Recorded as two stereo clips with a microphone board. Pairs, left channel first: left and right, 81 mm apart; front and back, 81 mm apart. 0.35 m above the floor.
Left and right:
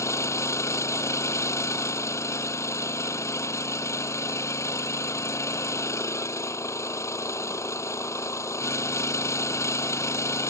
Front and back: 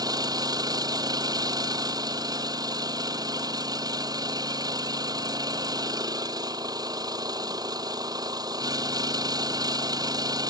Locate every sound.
0.0 s an engine running: 145° left